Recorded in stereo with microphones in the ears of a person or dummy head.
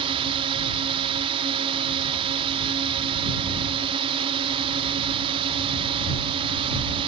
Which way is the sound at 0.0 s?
30° right (ahead or behind).